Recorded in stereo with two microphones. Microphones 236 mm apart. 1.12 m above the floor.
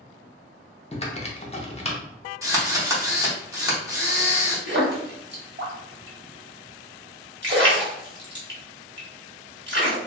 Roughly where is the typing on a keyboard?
Left.